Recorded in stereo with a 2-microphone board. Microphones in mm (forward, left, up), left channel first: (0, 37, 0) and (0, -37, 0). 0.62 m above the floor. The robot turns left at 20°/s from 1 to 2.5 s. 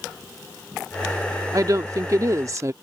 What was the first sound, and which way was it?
A woman speaking, 50° right (ahead or behind).